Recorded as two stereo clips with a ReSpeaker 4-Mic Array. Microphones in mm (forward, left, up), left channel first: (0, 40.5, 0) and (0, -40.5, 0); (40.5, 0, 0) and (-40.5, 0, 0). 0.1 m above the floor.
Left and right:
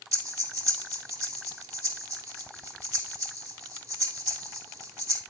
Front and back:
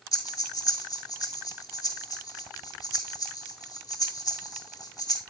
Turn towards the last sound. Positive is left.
turn(degrees=-45)